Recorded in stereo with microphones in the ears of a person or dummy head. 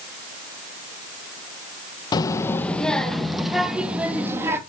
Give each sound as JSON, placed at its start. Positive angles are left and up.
{"t": 2.1, "sound": "a child speaking", "side_deg": 25, "distance_m": 0.9}